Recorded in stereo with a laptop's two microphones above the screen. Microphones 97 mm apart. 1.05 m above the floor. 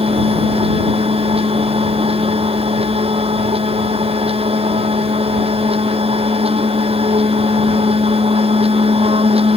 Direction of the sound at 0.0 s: 90° right.